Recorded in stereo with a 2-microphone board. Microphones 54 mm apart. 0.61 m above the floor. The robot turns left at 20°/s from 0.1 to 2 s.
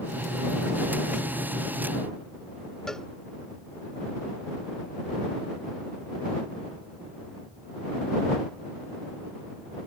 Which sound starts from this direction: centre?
A cowbell, at 2.9 s.